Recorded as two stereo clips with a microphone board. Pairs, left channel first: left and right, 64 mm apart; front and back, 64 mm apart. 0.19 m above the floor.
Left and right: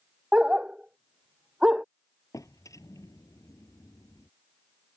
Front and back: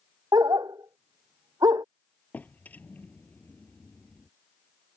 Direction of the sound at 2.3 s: 65° left.